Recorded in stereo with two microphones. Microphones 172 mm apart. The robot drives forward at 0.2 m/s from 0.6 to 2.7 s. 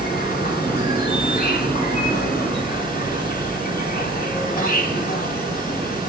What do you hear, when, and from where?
0.0 s an insect: 60° left (ahead or behind), 1.4 m